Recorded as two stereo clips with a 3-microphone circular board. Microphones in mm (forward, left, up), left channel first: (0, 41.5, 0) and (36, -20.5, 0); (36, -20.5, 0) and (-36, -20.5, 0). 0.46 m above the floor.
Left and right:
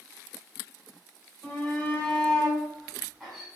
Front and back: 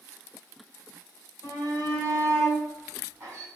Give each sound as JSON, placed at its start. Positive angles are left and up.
{"t": 1.4, "sound": "a shout", "azimuth_deg": 175, "distance_m": 2.0}